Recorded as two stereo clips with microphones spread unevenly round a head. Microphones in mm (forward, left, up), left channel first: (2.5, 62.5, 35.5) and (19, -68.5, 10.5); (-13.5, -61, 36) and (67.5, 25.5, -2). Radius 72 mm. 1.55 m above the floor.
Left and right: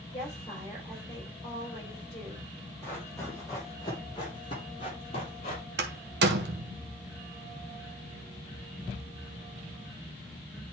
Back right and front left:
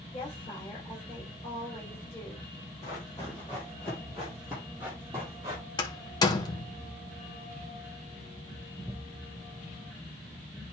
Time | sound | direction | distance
0.1 | a woman speaking | 160° left | 6.5 m
2.8 | running footsteps | 165° left | 3.5 m
5.8 | a door slam | 90° right | 1.2 m